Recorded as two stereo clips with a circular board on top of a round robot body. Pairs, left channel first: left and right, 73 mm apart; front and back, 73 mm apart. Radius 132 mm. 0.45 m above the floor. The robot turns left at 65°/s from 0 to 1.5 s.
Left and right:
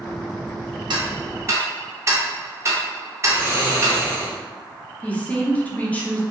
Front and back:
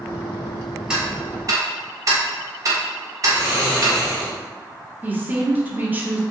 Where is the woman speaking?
140° left, 0.8 m.